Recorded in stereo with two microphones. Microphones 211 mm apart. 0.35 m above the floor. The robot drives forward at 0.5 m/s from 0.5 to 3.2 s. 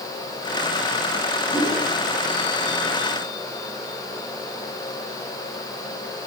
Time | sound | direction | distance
1.5 | a whoosh | centre (ahead or behind) | 9 m